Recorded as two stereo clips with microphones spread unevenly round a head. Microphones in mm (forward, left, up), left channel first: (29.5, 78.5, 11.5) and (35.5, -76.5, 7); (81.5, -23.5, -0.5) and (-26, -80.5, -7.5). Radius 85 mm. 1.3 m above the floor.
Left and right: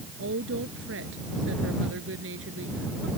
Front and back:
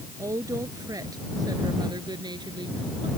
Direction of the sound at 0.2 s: 85° right.